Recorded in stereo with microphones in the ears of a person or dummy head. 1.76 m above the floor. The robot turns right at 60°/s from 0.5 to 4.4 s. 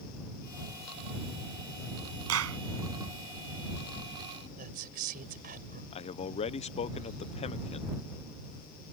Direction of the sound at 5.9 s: 30° left (ahead or behind).